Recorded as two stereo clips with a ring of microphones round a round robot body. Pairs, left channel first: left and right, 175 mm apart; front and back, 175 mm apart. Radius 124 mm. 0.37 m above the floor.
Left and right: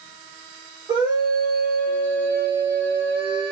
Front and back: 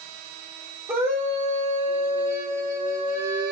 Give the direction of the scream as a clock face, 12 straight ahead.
4 o'clock.